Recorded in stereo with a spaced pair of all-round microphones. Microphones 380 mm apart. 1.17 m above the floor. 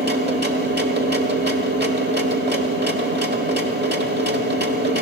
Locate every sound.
0.0 s a machine running: 25° right (ahead or behind), 1.1 m